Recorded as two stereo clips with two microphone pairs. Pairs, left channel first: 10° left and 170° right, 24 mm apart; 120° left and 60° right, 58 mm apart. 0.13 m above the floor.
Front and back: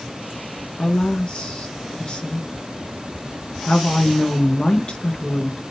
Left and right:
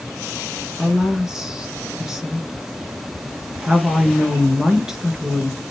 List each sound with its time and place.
0.8 s a woman speaking: 20° left, 2 m